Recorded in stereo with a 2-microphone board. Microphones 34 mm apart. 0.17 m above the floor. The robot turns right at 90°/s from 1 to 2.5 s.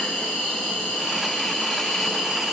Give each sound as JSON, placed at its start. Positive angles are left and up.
{"t": 0.0, "sound": "an insect", "azimuth_deg": 75, "distance_m": 1.3}